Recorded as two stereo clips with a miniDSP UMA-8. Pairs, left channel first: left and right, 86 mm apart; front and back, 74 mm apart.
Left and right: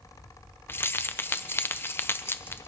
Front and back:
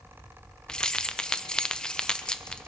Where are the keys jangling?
70° left, 0.6 m.